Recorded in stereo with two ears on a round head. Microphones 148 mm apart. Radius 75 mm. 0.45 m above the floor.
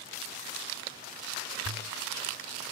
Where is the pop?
90° right.